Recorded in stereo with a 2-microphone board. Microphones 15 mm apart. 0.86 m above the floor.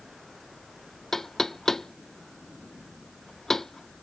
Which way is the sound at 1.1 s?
30° left (ahead or behind).